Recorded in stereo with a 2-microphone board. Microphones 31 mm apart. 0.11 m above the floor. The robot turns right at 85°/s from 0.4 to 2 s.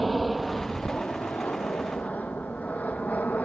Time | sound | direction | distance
0.0 | an aircraft | centre (ahead or behind) | ?